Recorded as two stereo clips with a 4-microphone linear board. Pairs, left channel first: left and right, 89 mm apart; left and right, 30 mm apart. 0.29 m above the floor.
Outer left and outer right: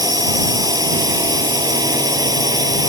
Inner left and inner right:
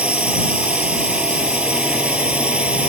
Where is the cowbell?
No cowbell in this recording.